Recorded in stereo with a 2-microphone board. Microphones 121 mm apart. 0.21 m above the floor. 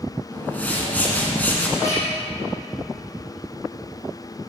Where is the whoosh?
15° left (ahead or behind), 1.5 m.